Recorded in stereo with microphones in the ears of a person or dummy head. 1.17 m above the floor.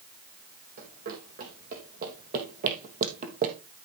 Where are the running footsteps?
50° right (ahead or behind), 5 m.